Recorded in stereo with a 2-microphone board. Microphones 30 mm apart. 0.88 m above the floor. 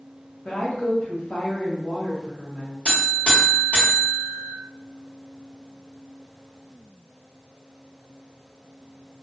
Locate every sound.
0.5 s a woman speaking: 50° left (ahead or behind), 0.9 m
2.9 s a buzzer: 40° left (ahead or behind), 1.5 m